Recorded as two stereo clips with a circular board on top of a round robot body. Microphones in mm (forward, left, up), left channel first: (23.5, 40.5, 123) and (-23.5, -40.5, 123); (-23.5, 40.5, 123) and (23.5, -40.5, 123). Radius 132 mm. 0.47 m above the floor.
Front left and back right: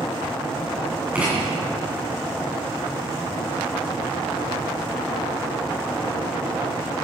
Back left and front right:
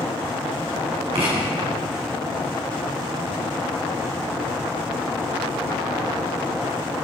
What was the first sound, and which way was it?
Writing, 45° right.